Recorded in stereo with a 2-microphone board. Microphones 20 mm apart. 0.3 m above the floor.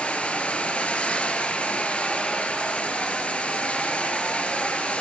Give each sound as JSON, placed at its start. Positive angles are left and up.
{"t": 0.0, "sound": "running water", "side_deg": 65, "distance_m": 3.5}